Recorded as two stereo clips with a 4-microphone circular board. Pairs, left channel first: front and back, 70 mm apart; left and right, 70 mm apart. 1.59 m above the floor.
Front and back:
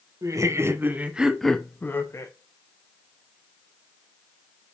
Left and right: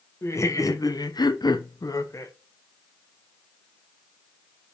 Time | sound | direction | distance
0.2 | laughter | 140° left | 1.4 m